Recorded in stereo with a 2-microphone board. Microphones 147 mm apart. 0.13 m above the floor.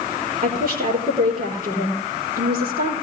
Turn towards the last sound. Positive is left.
turn(degrees=-75)  # may be behind; listen again after turning